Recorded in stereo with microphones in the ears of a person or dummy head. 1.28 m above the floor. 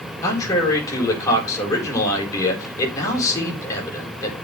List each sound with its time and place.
0.2 s a man speaking: 20° left (ahead or behind), 4.5 m